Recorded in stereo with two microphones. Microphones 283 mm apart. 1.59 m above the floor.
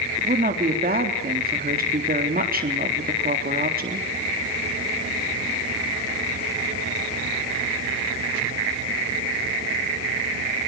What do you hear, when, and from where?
0.2 s a woman speaking: 30° right (ahead or behind), 3.5 m